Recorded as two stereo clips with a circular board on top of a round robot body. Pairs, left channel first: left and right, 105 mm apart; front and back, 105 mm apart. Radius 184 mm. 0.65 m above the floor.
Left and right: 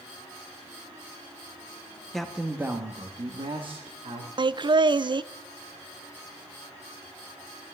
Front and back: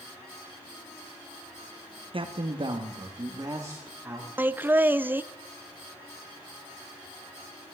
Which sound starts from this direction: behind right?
Laughter, at 4.4 s.